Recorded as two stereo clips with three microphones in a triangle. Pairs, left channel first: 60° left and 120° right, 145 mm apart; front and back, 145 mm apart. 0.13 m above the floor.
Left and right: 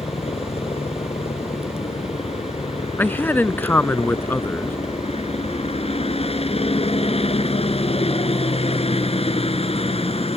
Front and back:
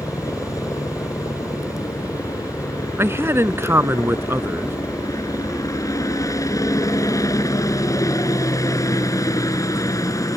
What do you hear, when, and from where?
0.0 s a helicopter: 55° left
3.0 s a man speaking: 125° left